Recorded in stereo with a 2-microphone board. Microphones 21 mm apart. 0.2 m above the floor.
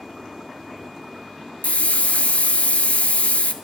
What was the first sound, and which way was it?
A hiss, 85° left.